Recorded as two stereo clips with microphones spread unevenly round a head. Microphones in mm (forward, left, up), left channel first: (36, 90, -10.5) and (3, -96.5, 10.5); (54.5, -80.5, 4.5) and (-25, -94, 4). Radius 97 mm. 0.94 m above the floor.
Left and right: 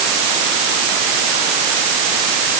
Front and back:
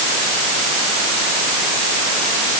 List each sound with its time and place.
Only background noise.